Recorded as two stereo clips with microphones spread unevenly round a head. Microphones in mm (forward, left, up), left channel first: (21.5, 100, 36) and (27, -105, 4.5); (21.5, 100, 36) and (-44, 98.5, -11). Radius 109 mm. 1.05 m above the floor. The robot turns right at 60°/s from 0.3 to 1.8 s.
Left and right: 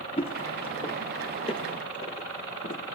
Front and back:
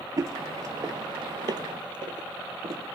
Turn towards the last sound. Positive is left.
turn(degrees=130)